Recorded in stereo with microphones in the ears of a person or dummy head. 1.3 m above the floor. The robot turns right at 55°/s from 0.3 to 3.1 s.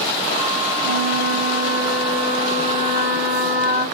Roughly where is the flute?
Right.